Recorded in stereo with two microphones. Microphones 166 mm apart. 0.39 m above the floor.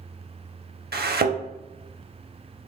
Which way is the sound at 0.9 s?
75° right (ahead or behind).